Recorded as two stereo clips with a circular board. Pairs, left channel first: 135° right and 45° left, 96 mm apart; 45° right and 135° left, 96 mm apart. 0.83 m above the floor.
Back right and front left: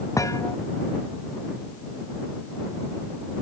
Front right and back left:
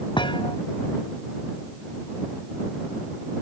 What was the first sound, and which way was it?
A thud, 80° right.